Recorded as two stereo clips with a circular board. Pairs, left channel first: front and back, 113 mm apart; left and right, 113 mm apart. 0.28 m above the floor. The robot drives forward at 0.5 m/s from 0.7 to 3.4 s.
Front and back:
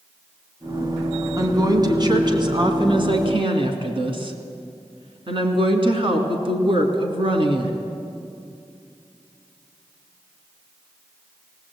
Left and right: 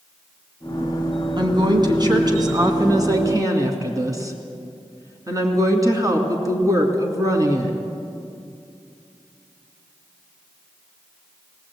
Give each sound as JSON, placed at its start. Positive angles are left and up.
{"t": 1.4, "sound": "a woman speaking", "azimuth_deg": -130, "distance_m": 2.5}